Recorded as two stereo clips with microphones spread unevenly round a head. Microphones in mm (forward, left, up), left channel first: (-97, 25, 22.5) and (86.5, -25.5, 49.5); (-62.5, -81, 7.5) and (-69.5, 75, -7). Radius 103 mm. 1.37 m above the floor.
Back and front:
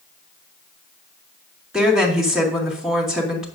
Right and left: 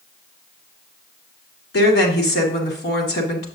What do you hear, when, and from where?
1.7 s a woman speaking: 105° right, 2 m